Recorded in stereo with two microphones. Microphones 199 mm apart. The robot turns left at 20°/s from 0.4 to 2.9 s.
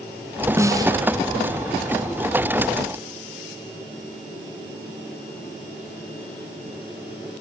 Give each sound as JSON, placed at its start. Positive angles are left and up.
{"t": 0.6, "sound": "a snare drum", "side_deg": -15, "distance_m": 1.5}